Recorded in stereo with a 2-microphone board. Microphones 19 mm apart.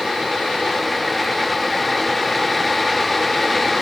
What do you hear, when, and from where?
Only background noise.